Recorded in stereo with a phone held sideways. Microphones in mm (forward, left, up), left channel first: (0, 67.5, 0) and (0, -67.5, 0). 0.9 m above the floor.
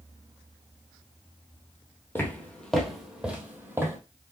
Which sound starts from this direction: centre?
Footsteps, at 2.1 s.